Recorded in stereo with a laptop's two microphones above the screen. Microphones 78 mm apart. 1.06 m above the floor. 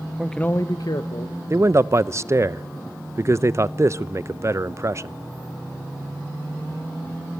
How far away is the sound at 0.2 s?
About 0.5 m.